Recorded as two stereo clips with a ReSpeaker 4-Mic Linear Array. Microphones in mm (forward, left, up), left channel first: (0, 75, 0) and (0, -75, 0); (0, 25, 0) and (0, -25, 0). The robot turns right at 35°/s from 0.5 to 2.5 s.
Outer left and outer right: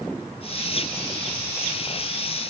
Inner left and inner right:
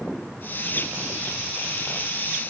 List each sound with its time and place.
Only background noise.